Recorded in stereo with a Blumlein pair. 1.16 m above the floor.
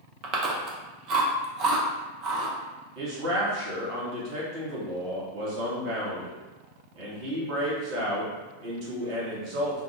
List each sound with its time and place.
0.2 s chewing: 35° right, 0.5 m
3.0 s a man speaking: 40° right, 1.1 m